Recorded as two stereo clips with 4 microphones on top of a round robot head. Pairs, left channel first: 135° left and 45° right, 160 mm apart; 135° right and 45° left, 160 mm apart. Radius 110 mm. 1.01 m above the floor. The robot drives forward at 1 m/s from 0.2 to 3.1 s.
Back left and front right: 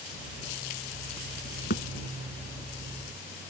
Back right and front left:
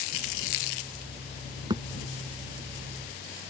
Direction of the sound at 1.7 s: 110° left.